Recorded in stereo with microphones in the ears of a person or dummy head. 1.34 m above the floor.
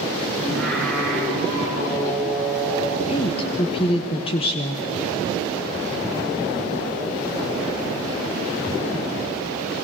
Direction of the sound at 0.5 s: 5° left (ahead or behind).